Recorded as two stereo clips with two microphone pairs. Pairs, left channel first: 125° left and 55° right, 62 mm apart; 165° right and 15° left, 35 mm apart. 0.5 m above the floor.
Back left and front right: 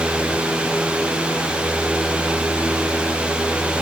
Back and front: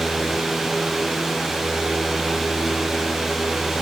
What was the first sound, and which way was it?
Only background noise.